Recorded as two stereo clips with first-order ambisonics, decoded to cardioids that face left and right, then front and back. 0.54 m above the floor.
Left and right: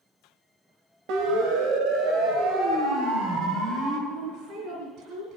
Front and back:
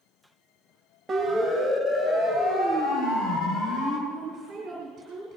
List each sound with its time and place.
1.1 s a siren: 95° right, 3 m; by 4.0 s 40° right, 5.5 m
4.1 s a woman speaking: 120° right, 4 m